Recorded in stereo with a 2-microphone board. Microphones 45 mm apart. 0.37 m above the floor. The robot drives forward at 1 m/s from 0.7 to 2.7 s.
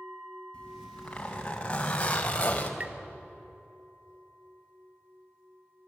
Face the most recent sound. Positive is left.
turn(degrees=-35)  # may be behind; listen again after turning